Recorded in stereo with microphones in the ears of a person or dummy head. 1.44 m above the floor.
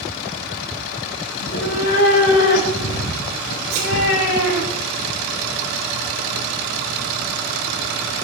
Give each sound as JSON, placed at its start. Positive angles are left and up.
{"t": 1.4, "sound": "a cat meowing", "side_deg": 70, "distance_m": 6.0}
{"t": 3.7, "sound": "a thud", "side_deg": -40, "distance_m": 7.5}